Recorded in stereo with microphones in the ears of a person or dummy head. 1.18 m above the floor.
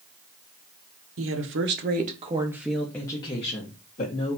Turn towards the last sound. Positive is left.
turn(degrees=45)  # may be behind; listen again after turning